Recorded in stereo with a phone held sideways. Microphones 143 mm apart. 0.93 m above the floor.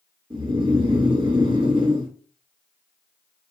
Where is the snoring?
35° right (ahead or behind), 1.1 m.